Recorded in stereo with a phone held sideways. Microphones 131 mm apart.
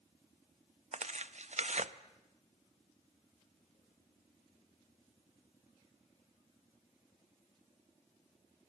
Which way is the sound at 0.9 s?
60° right (ahead or behind).